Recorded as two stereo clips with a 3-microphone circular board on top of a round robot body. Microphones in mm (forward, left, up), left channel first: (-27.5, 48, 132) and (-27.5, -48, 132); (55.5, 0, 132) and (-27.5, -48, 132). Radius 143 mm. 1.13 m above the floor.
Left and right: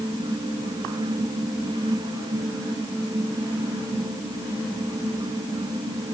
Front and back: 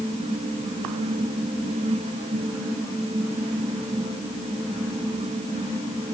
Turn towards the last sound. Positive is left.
No sound to turn to.